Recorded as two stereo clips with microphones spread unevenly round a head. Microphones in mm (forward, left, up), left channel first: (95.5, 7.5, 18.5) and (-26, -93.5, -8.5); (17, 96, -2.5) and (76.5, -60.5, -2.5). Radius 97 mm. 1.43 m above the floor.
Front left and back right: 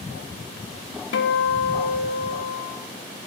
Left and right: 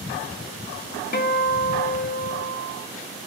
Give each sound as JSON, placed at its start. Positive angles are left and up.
{"t": 1.1, "sound": "a guitar", "azimuth_deg": 75, "distance_m": 0.6}